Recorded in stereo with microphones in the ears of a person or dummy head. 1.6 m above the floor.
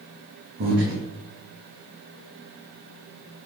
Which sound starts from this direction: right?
Breathing, at 0.6 s.